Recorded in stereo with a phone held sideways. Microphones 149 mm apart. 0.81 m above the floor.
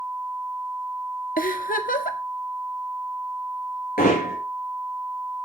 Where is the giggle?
70° left (ahead or behind), 1.2 m.